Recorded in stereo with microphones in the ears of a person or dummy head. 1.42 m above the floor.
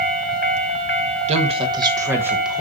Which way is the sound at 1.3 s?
35° right (ahead or behind).